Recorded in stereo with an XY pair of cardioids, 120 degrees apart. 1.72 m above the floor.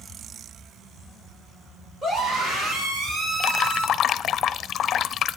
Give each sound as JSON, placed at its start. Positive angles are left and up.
{"t": 2.0, "sound": "a scream", "azimuth_deg": -50, "distance_m": 6.5}
{"t": 3.4, "sound": "dripping", "azimuth_deg": 55, "distance_m": 0.6}